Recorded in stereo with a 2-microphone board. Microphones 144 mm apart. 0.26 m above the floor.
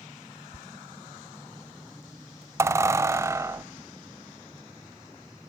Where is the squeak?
20° right (ahead or behind), 0.6 m.